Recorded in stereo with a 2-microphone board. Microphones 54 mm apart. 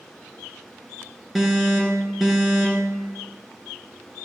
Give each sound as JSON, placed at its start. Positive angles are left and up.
{"t": 1.4, "sound": "an alarm", "side_deg": 0, "distance_m": 2.5}